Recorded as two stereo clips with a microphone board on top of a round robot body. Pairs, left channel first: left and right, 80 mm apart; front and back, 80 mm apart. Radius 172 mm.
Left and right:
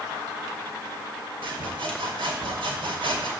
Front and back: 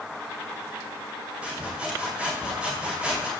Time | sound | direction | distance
1.4 | sawing | 100° right | 2 m